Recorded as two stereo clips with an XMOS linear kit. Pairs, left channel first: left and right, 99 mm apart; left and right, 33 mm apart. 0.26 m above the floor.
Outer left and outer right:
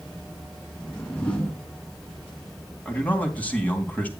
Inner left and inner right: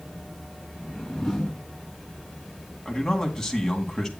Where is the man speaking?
15° left (ahead or behind), 2.5 m.